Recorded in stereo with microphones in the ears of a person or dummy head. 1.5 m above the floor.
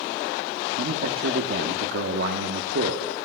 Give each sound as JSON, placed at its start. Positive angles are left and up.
{"t": 0.8, "sound": "a man speaking", "side_deg": -60, "distance_m": 1.1}